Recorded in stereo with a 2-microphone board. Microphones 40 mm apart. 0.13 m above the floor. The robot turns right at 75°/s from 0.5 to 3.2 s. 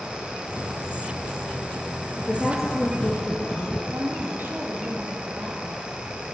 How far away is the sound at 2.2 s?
About 2.5 m.